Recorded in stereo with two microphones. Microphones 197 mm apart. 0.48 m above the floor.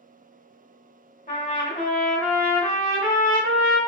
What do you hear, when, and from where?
1.3 s a trumpet: 50° left (ahead or behind), 0.7 m